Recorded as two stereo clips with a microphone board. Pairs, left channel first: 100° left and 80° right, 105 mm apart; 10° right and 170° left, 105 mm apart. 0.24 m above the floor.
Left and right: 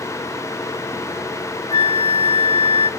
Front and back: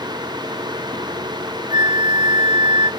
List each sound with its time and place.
1.7 s a flute: 130° left, 0.9 m